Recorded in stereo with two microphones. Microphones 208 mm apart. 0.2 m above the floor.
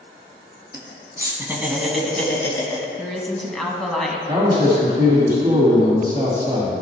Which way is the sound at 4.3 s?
20° right (ahead or behind).